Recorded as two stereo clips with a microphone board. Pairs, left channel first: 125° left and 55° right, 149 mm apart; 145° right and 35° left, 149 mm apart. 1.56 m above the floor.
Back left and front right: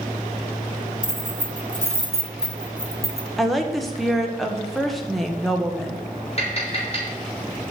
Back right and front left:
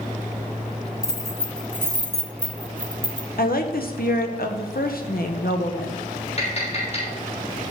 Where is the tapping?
170° left, 5 m.